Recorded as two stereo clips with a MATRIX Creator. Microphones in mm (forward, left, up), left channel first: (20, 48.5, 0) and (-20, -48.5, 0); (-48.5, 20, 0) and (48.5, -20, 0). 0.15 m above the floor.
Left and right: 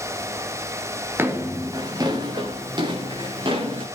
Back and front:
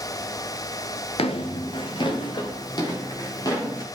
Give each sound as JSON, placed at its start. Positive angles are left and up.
{"t": 1.2, "sound": "footsteps", "azimuth_deg": 180, "distance_m": 1.6}